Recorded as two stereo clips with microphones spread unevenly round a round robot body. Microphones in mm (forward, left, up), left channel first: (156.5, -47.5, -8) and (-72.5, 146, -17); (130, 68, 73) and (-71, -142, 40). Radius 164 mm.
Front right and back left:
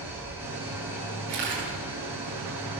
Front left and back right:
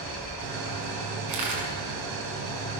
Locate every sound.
0.0 s an engine running: 135° right, 4 m
1.3 s a camera shutter: 160° right, 7 m